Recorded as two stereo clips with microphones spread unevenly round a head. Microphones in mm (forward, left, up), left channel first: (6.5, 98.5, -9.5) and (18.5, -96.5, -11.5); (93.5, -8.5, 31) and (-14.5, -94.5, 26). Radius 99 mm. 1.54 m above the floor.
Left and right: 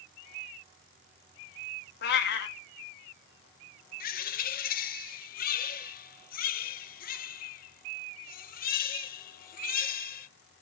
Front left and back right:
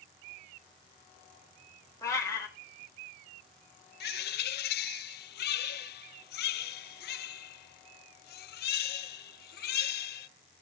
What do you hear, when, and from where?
2.0 s a cat meowing: 110° left, 1.4 m
4.0 s a bird: 45° left, 0.7 m